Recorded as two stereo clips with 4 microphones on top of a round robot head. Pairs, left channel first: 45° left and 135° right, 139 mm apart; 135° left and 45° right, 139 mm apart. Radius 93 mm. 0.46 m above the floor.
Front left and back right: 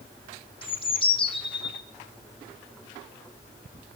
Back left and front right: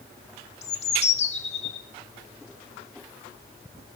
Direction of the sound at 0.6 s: 95° left.